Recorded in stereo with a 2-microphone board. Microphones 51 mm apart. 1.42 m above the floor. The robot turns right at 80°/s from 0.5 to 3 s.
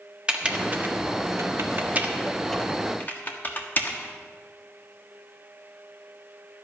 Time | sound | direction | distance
0.3 | typing on a keyboard | 20° right (ahead or behind) | 1.4 m